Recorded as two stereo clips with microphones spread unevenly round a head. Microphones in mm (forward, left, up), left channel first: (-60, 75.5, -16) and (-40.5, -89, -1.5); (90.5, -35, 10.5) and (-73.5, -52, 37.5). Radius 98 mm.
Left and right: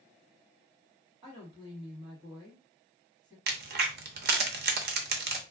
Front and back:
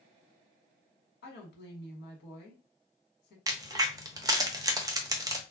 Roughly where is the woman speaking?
Ahead.